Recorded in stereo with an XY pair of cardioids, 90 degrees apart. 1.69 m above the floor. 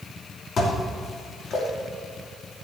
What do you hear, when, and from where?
0.6 s dishes clattering: 65° left, 3 m